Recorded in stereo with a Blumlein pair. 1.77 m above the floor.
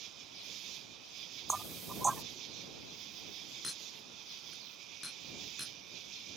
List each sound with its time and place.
0.0 s an insect: 35° right
1.5 s knocking: 15° right
3.6 s a clink: 5° left